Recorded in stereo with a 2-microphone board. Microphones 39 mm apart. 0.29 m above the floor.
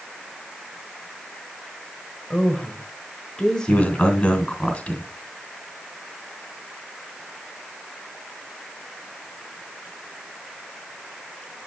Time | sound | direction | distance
2.3 | a woman speaking | 20° left (ahead or behind) | 1.3 m
3.7 | a man speaking | 35° left (ahead or behind) | 2.5 m